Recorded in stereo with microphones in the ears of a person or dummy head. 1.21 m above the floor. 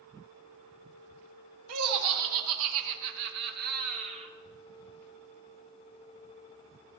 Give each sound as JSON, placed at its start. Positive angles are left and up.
{"t": 1.7, "sound": "laughter", "side_deg": -85, "distance_m": 1.6}